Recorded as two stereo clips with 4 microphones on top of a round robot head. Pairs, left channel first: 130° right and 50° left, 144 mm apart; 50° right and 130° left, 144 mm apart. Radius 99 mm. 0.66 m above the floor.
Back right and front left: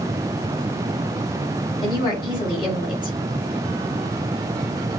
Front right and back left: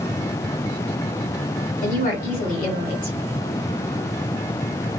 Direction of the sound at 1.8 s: 75° right.